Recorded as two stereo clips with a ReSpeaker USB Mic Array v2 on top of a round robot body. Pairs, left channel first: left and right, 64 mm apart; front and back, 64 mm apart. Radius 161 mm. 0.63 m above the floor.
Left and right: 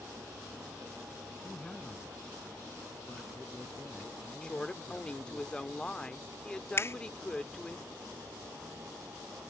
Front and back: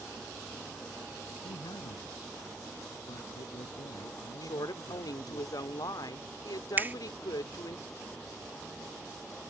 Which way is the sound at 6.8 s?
125° left.